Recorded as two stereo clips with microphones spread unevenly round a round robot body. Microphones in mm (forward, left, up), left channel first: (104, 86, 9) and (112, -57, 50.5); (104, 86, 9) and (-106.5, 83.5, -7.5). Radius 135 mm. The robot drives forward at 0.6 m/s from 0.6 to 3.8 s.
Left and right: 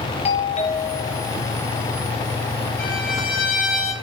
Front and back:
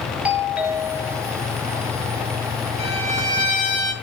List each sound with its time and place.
0.2 s a doorbell: 100° left, 3 m; by 1.4 s 110° left, 3 m
2.8 s a violin: 120° left, 7 m; by 3.9 s 125° left, 7 m